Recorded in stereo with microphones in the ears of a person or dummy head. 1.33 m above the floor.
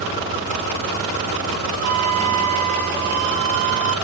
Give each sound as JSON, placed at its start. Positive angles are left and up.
{"t": 1.8, "sound": "a flute", "side_deg": -50, "distance_m": 1.1}